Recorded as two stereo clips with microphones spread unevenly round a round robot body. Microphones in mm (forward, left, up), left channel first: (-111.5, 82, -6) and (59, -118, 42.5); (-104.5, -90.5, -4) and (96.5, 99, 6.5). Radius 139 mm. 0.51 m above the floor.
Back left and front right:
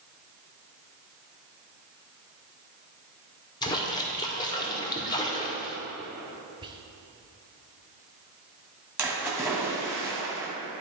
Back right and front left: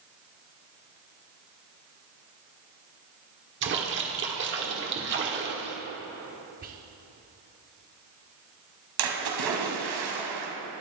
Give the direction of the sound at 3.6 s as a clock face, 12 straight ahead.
10 o'clock.